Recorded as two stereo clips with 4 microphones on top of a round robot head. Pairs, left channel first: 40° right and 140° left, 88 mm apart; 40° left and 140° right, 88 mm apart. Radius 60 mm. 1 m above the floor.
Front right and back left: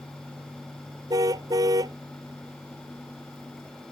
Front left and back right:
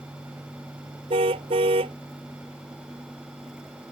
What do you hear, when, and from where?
1.1 s a car horn: 170° right